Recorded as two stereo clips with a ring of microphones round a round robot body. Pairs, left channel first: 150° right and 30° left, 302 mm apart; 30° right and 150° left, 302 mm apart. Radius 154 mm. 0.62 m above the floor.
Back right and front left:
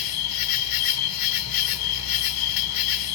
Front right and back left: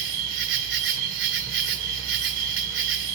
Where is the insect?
160° right, 2.5 m.